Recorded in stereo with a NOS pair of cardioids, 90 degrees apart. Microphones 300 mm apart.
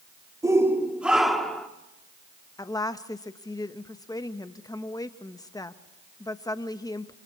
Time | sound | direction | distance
0.4 | a shout | 10° right | 2.5 m
2.6 | a woman speaking | 10° left | 1.3 m